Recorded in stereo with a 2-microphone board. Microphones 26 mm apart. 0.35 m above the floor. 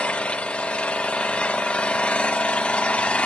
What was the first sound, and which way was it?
An engine running, 55° left (ahead or behind).